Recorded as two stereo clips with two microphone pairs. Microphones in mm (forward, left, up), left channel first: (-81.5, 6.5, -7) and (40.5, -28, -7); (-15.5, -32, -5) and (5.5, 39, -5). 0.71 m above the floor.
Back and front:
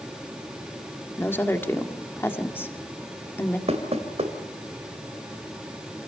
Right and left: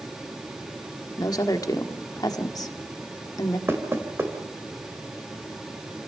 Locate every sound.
1.2 s a woman speaking: 125° right, 1.8 m
3.7 s knocking: 20° left, 2.5 m